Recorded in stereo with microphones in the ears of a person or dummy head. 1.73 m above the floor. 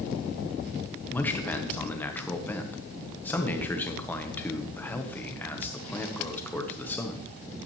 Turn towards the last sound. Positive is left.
turn(degrees=5)  # may be behind; listen again after turning